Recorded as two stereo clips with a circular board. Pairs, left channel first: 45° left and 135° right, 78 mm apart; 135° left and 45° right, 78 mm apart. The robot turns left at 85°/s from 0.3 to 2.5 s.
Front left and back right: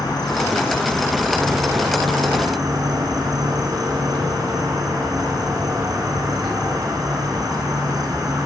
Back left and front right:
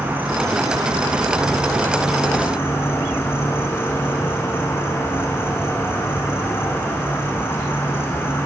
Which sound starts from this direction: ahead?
An insect, at 0.0 s.